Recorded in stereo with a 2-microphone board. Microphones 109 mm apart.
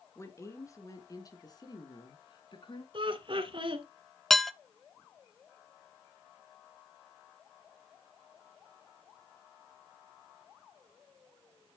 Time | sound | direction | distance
0.1 | a woman speaking | 25° left (ahead or behind) | 3 m
2.9 | laughter | 50° right (ahead or behind) | 2 m
4.3 | dishes clattering | 5° left (ahead or behind) | 0.6 m